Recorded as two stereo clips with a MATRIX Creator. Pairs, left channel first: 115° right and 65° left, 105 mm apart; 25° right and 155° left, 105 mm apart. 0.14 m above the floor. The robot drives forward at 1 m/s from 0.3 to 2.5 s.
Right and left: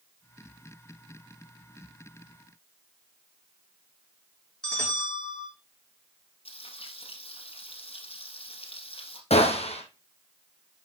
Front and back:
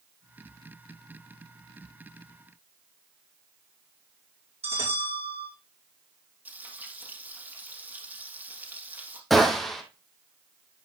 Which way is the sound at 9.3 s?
110° right.